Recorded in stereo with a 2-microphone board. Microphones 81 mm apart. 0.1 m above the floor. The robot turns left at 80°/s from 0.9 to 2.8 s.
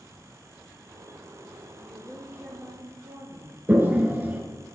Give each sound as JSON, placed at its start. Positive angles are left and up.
{"t": 1.8, "sound": "a woman speaking", "azimuth_deg": 20, "distance_m": 2.5}
{"t": 3.7, "sound": "a toilet flushing", "side_deg": -25, "distance_m": 1.3}